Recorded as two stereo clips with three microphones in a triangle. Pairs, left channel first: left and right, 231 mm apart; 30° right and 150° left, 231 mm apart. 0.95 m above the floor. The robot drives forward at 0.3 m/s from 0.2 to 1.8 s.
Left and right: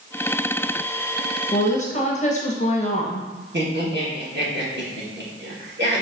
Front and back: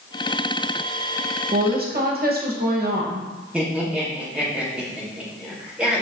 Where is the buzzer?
No buzzer in this recording.